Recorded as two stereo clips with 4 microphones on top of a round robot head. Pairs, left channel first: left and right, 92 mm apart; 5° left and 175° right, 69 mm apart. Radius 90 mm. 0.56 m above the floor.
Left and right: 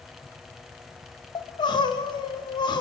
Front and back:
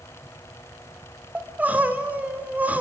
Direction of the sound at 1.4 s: 120° left.